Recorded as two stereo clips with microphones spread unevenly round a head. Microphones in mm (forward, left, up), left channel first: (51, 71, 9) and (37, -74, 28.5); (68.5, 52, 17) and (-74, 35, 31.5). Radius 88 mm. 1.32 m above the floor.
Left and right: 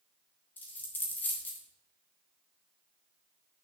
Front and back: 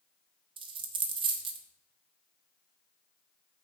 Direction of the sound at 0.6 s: 170° left.